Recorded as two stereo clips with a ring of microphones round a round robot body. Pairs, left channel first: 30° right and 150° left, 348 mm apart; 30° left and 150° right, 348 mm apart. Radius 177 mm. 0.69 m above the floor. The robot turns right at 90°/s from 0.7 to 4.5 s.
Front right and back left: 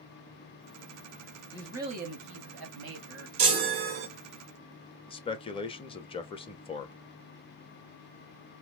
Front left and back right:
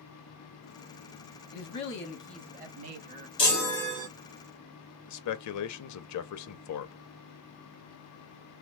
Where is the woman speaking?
45° left, 1.3 m; by 3.3 s 155° right, 1.3 m.